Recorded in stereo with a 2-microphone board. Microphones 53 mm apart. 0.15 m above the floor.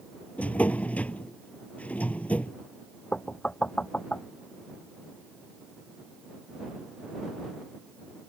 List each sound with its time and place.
0.4 s a drawer: 30° left (ahead or behind)
3.1 s knocking: 20° left (ahead or behind)